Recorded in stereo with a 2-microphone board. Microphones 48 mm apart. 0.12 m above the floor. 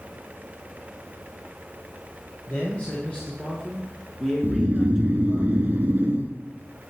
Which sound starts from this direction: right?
Snoring, at 4.4 s.